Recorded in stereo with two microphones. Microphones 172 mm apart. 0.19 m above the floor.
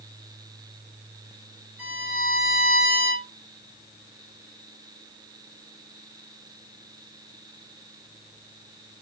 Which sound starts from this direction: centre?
A violin, at 1.8 s.